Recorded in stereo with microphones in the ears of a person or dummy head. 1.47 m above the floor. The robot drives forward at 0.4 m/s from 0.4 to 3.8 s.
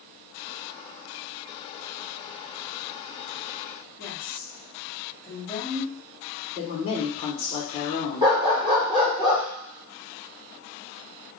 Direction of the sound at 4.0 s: 10° left (ahead or behind).